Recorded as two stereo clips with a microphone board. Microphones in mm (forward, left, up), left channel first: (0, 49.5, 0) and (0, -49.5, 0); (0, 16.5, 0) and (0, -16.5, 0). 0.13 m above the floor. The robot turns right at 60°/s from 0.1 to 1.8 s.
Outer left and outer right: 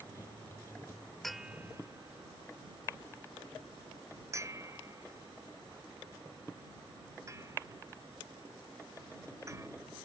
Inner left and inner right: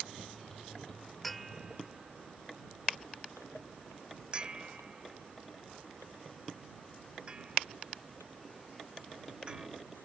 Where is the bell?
5° left (ahead or behind); by 9.7 s 30° right (ahead or behind).